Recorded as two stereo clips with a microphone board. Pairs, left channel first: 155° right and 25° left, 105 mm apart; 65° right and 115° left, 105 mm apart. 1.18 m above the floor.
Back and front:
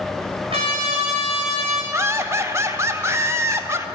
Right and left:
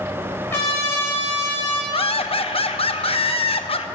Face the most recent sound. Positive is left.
turn(degrees=-40)